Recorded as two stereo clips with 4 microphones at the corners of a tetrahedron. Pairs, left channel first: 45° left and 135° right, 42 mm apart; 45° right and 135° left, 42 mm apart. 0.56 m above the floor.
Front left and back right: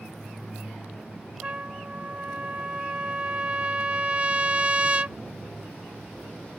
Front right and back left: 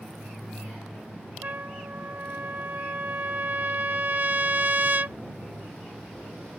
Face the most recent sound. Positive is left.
turn(degrees=170)